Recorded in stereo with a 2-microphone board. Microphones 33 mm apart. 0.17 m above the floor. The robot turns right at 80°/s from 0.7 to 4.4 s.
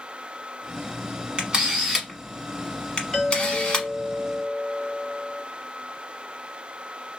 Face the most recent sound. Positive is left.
turn(degrees=-125)